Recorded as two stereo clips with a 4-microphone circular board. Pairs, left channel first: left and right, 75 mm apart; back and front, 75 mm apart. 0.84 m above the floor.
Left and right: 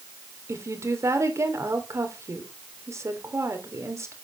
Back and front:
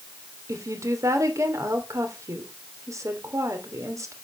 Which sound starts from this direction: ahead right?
A woman speaking, at 0.5 s.